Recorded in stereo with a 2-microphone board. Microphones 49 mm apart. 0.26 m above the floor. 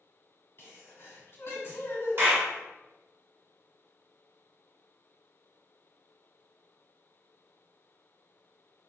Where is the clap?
50° right (ahead or behind), 1.4 m.